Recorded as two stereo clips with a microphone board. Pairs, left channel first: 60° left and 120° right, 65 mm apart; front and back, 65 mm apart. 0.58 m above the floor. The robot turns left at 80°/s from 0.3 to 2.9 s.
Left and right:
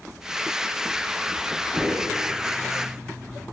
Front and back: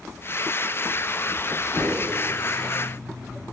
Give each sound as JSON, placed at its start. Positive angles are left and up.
{"t": 1.7, "sound": "a whoosh", "azimuth_deg": -15, "distance_m": 1.7}